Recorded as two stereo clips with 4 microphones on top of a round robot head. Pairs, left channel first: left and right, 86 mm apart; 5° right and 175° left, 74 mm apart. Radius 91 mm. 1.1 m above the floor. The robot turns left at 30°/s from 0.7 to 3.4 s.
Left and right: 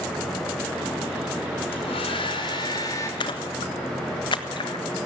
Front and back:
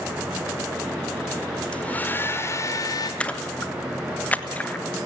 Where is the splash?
70° left, 1.5 m; by 4.9 s 60° left, 1.5 m.